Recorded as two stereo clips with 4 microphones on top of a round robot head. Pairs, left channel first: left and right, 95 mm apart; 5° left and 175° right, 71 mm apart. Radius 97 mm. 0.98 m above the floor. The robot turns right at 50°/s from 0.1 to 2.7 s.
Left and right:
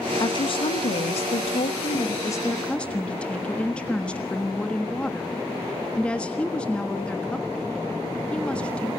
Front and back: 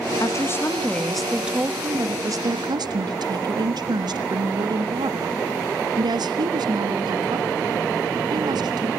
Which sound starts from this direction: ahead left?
A woman speaking, at 0.2 s.